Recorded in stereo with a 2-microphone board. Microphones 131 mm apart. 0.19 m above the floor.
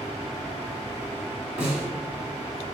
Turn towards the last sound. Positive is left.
turn(degrees=-10)  # may be behind; listen again after turning